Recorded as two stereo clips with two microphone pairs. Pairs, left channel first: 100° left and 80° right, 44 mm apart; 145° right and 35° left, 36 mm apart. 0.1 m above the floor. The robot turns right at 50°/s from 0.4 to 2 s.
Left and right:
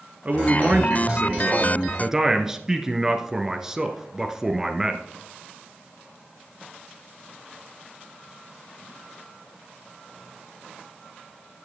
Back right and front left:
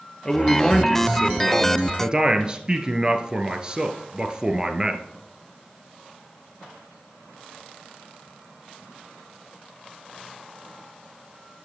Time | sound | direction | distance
0.2 | a man speaking | 90° right | 1.4 m